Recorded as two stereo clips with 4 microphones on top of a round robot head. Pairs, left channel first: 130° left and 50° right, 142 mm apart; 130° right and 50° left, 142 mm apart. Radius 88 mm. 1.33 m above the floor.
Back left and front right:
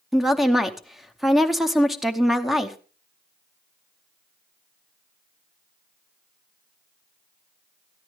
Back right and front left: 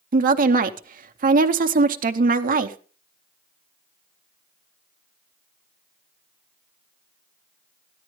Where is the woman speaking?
40° left, 0.8 m.